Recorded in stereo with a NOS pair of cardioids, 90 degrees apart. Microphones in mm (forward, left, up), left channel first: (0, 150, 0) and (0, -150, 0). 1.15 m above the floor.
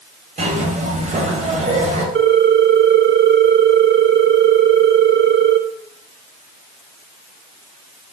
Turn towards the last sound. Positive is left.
turn(degrees=-40)